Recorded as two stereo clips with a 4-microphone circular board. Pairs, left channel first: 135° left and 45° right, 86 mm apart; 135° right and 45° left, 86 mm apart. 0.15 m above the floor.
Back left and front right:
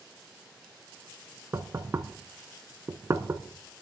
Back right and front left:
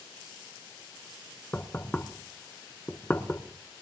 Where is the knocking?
80° right, 0.9 m.